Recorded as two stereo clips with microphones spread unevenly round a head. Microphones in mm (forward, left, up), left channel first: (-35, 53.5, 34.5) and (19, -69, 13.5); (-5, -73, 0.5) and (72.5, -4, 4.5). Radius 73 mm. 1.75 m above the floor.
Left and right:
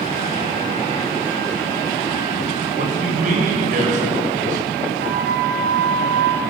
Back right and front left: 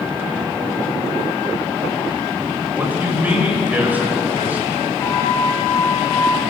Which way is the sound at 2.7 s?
35° right.